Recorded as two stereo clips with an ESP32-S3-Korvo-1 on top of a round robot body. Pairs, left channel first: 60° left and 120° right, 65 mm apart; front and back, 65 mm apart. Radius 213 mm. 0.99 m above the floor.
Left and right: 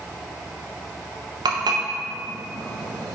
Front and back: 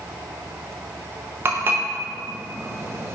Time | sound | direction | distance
1.4 | dishes clattering | 125° right | 0.7 m